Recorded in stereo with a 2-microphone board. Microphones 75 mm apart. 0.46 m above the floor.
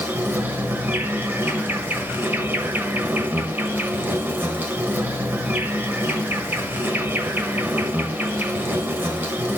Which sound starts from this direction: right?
An insect, at 0.0 s.